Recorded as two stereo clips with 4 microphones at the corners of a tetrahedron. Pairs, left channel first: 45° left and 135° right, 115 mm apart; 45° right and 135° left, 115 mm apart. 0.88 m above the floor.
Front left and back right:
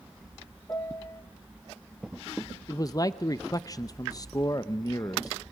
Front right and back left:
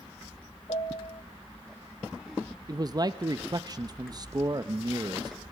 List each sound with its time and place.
0.7 s a piano: 20° right, 1.1 m
2.7 s a man speaking: 95° left, 0.5 m